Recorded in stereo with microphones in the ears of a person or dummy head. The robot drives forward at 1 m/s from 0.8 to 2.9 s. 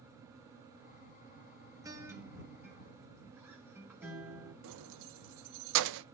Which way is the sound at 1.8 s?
10° right (ahead or behind).